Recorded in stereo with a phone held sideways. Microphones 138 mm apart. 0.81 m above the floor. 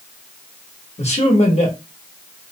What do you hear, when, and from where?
1.0 s a man speaking: 50° left (ahead or behind), 1.1 m